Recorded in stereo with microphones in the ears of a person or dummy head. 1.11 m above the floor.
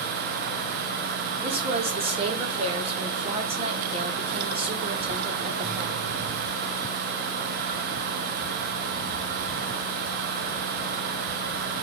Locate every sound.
1.4 s a woman speaking: 40° right (ahead or behind), 0.9 m